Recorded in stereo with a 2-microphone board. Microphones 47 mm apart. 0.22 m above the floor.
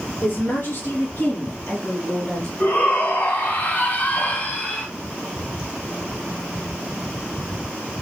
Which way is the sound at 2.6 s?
40° left (ahead or behind).